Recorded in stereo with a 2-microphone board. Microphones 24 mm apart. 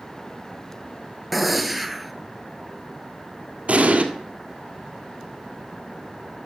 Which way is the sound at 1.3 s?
Centre (ahead or behind).